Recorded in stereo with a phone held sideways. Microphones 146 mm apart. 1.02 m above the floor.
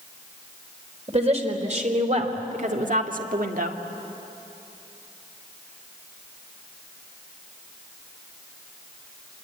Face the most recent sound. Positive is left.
turn(degrees=-75)  # may be behind; listen again after turning